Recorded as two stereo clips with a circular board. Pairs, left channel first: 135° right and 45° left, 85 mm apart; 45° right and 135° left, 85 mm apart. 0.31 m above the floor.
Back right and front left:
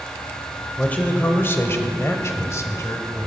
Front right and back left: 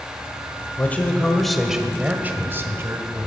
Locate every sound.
0.8 s a man speaking: 80° right, 1.0 m; by 3.3 s 175° left, 1.6 m